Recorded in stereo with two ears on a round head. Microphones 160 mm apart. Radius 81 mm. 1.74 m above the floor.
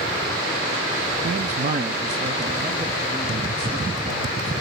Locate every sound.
1.2 s a man speaking: 50° right (ahead or behind), 0.5 m; by 4.5 s 25° right (ahead or behind), 2.5 m